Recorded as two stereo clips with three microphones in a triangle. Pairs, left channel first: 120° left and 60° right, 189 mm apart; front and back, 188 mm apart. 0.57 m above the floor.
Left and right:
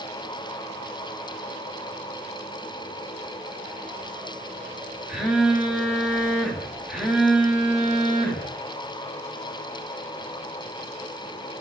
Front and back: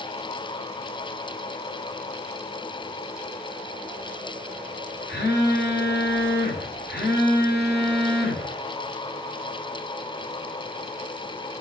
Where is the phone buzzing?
25° left, 1.2 m.